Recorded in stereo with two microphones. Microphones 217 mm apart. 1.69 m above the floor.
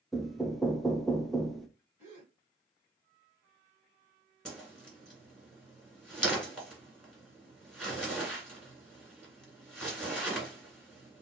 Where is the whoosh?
Centre (ahead or behind), 2 m.